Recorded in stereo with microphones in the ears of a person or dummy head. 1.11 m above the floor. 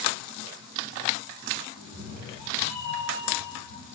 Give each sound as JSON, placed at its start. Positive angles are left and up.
{"t": 1.8, "sound": "a cat meowing", "side_deg": -65, "distance_m": 3.5}